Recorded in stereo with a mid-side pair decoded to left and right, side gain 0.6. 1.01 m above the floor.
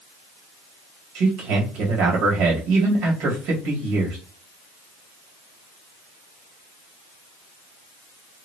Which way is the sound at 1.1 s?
65° right.